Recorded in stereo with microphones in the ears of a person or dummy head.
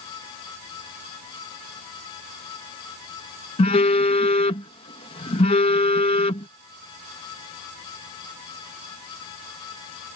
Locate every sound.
3.6 s a phone buzzing: 30° left (ahead or behind)